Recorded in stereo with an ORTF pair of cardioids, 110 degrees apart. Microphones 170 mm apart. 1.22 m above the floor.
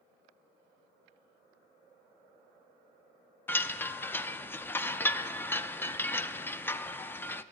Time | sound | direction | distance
3.5 | a chime | 10° left | 0.5 m